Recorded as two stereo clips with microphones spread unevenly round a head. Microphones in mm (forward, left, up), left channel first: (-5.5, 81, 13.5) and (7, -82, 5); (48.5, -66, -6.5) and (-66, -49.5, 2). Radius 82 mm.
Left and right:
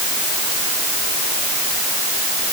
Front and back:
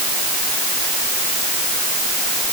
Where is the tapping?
No tapping in this recording.